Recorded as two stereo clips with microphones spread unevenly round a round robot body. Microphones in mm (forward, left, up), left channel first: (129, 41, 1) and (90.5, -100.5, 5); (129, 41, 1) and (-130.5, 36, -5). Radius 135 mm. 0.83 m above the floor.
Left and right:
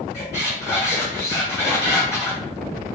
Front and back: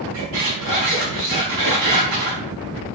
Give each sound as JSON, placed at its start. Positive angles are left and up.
{"t": 0.1, "sound": "a squeak", "azimuth_deg": 170, "distance_m": 4.0}